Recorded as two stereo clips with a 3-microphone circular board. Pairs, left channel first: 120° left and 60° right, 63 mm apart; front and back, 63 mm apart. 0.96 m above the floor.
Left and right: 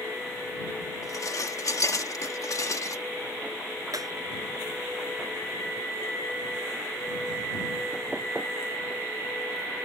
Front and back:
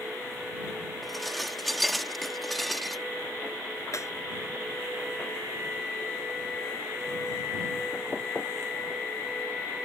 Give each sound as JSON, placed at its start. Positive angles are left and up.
{"t": 1.0, "sound": "dishes clattering", "azimuth_deg": 90}
{"t": 3.9, "sound": "breaking glass", "azimuth_deg": -40}